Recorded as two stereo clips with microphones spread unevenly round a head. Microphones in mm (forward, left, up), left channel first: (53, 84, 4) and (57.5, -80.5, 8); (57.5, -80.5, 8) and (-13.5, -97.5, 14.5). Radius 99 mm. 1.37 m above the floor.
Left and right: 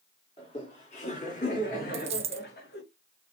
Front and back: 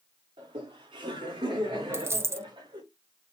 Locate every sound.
0.4 s laughter: 155° left, 4 m; by 2.8 s 135° left, 4 m
1.9 s a dropped coin: 135° right, 1.1 m